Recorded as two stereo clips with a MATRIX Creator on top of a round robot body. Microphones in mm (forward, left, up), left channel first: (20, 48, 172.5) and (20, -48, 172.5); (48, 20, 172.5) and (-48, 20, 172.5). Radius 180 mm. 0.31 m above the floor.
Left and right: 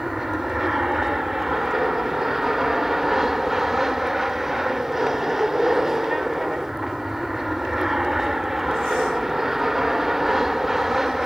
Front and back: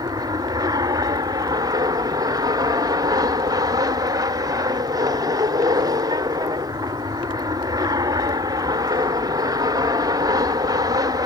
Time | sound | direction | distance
0.0 | an aircraft | 175° right | ?